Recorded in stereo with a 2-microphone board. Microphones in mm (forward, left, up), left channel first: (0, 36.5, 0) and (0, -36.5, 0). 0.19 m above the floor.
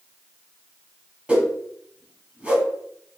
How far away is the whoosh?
About 0.7 m.